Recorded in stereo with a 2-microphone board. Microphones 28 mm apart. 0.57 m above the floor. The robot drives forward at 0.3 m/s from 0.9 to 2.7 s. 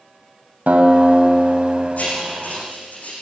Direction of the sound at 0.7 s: 65° right (ahead or behind).